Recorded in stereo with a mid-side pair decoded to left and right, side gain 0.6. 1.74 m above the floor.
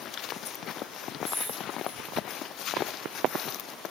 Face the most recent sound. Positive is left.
turn(degrees=5)